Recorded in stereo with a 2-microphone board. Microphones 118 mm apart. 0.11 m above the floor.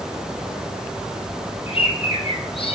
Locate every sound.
1.7 s a bird: 55° left (ahead or behind), 1.2 m